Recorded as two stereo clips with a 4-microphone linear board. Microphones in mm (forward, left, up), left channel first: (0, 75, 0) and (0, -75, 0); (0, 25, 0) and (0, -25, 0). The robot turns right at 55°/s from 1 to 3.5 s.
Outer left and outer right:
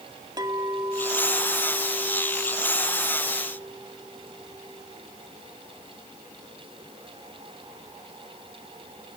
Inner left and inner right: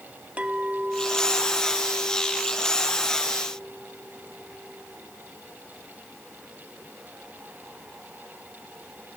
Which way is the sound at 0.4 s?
120° right.